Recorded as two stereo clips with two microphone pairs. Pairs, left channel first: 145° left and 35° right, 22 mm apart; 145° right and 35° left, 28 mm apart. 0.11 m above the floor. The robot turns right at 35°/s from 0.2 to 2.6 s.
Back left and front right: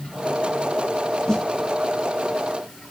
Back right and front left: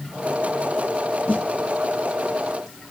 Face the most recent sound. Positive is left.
turn(degrees=-105)